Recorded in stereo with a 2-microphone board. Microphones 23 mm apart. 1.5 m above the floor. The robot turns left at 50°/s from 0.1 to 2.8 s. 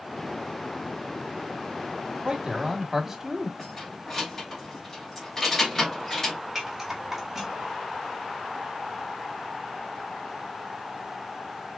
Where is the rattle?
15° right (ahead or behind), 1.6 m.